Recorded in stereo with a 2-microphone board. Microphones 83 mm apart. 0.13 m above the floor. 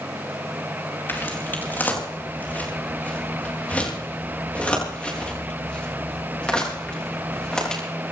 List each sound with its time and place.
1.1 s footsteps: 25° left (ahead or behind), 5.5 m; by 7.8 s 10° left (ahead or behind), 10.5 m